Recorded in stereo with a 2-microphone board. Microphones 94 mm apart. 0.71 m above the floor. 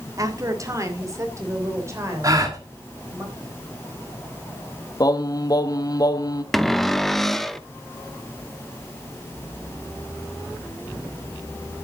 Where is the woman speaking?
35° right (ahead or behind), 1.8 m; by 3.2 s 25° right (ahead or behind), 4 m.